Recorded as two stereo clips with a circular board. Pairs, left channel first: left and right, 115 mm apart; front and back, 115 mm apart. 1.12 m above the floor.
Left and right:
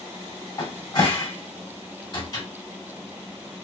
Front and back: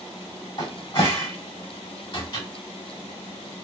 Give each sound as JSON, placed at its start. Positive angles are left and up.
{"t": 0.6, "sound": "a cupboard door", "azimuth_deg": 40, "distance_m": 1.2}